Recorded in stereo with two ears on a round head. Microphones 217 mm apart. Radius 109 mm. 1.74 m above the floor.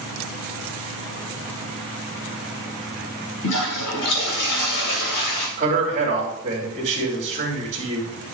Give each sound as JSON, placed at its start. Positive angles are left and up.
{"t": 3.4, "sound": "a toilet flushing", "side_deg": 75, "distance_m": 3.0}
{"t": 5.6, "sound": "a man speaking", "side_deg": -35, "distance_m": 2.5}